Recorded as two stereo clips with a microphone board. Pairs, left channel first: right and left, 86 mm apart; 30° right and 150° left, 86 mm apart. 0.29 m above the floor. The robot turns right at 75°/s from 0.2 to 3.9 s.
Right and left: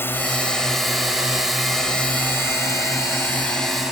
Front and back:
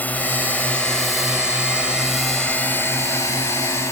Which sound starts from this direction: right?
A drone, at 0.0 s.